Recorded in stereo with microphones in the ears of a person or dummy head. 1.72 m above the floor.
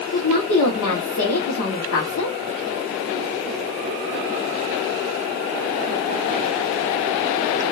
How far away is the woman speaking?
About 1.4 m.